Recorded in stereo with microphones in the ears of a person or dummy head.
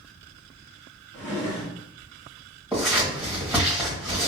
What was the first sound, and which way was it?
A drawer, 5° left (ahead or behind).